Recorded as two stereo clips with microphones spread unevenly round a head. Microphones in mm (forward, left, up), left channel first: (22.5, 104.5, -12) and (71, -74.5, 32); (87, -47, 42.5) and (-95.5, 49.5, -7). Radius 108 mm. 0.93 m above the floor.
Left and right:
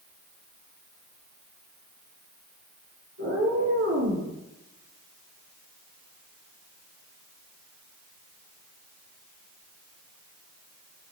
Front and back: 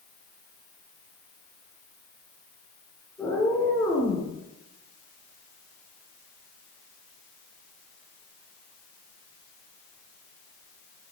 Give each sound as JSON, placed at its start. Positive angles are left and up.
{"t": 3.2, "sound": "a cat meowing", "azimuth_deg": -110, "distance_m": 4.5}